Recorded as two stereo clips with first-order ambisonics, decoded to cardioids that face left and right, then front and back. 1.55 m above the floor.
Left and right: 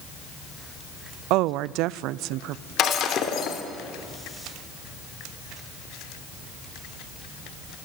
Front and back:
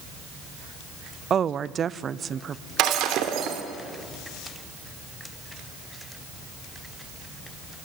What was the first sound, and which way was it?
A woman speaking, 115° right.